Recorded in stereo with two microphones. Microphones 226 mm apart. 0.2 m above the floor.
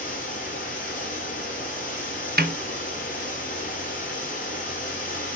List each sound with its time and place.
0.0 s running water: 35° left (ahead or behind), 4.5 m
2.4 s a snare drum: 45° right (ahead or behind), 0.6 m